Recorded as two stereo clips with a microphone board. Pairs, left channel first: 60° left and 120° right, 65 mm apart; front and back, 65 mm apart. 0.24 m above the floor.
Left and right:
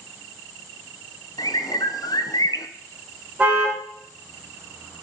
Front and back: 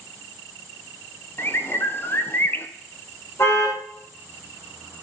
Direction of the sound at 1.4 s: 55° left.